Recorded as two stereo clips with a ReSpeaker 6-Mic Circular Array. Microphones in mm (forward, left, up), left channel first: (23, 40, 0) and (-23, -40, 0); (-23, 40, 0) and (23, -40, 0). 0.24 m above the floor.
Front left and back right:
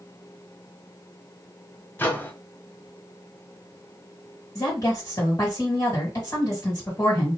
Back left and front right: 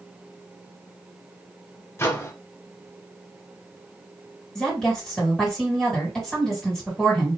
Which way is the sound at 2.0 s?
105° left.